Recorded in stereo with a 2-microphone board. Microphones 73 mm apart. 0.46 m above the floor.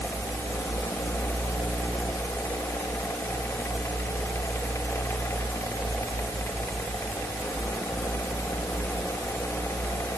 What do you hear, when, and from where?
Only background noise.